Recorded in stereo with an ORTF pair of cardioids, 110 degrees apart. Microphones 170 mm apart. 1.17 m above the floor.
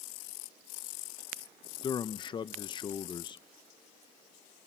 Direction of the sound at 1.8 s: 30° left.